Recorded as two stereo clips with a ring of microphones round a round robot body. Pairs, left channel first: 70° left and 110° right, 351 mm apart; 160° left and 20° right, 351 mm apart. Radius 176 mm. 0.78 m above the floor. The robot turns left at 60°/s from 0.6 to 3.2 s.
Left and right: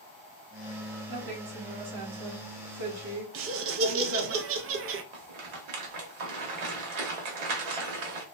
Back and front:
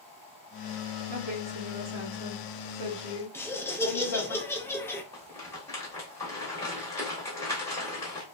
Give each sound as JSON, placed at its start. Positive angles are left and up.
{"t": 1.1, "sound": "a woman speaking", "azimuth_deg": -35, "distance_m": 1.3}
{"t": 3.3, "sound": "laughter", "azimuth_deg": -125, "distance_m": 0.5}
{"t": 5.1, "sound": "a rattle", "azimuth_deg": -120, "distance_m": 1.0}